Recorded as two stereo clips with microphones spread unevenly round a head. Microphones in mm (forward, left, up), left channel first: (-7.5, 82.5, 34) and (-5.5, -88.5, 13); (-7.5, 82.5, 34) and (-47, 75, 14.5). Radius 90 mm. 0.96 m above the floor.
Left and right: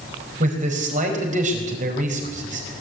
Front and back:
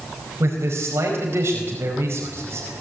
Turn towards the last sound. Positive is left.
turn(degrees=-135)